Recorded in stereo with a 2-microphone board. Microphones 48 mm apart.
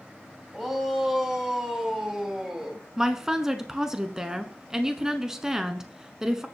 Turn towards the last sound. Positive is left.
turn(degrees=-10)  # may be behind; listen again after turning